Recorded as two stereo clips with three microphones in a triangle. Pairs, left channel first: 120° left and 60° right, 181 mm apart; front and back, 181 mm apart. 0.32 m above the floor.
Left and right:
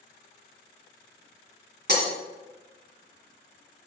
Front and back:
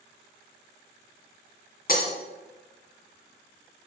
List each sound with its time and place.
1.9 s breaking glass: 35° right, 2.0 m